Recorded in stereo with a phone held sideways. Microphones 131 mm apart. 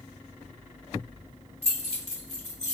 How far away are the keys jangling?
About 2 m.